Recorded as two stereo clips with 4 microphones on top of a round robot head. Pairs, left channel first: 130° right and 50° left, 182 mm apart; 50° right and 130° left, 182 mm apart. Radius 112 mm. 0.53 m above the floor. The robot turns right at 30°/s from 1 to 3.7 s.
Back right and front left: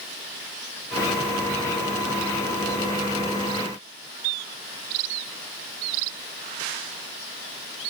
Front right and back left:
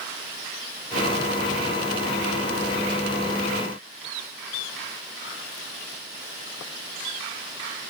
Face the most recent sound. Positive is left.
No sound to turn to.